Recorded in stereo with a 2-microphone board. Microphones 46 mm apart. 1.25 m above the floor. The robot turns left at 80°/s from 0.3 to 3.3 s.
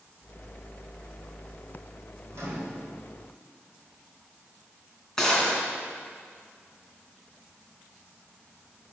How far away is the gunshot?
About 3 m.